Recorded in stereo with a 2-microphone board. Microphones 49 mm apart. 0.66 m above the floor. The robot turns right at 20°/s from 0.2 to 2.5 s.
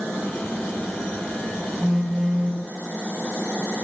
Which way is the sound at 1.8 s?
10° right (ahead or behind).